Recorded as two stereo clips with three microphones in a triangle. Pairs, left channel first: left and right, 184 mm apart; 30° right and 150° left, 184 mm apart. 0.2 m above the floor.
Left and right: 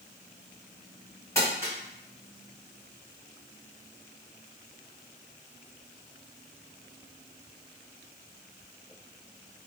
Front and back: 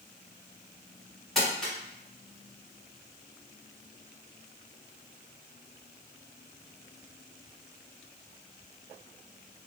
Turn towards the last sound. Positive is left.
turn(degrees=55)